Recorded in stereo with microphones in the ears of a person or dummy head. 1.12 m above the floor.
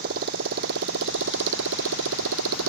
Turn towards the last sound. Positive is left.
turn(degrees=-85)